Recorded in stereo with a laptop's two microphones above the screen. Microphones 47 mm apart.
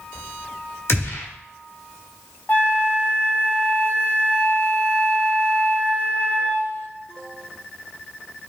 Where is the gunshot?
65° left (ahead or behind), 1.3 m.